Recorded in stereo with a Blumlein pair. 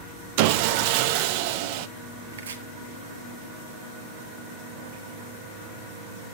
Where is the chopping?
65° right, 1.6 m.